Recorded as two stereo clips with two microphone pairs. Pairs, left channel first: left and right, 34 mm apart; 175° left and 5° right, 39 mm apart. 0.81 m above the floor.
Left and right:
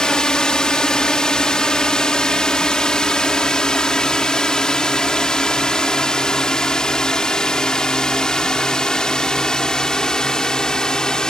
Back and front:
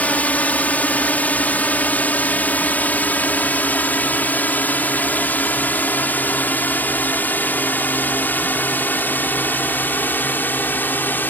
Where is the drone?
150° left; by 11.3 s 155° left.